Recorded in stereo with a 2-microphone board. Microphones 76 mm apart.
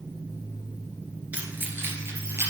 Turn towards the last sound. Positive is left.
turn(degrees=-40)  # may be behind; listen again after turning